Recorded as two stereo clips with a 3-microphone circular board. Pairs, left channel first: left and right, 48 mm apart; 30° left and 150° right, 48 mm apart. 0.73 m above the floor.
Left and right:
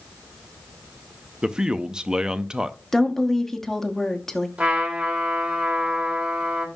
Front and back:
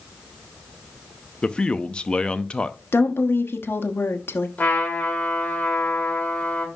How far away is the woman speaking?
About 1.0 m.